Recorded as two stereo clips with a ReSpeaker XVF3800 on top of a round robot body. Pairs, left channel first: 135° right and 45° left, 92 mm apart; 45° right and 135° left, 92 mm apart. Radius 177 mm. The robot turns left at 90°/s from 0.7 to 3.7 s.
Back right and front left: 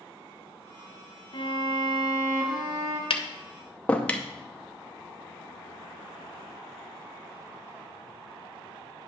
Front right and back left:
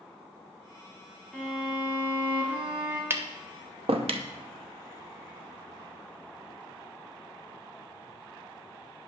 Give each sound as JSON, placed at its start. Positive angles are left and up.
{"t": 1.3, "sound": "a violin", "azimuth_deg": -120, "distance_m": 2.0}
{"t": 3.1, "sound": "tapping", "azimuth_deg": -160, "distance_m": 0.7}